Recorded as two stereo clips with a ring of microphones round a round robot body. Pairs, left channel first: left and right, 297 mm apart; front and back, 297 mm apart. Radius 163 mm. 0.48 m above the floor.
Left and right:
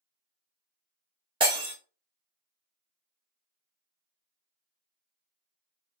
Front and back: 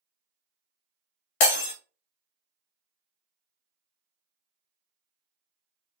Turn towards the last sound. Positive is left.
turn(degrees=-15)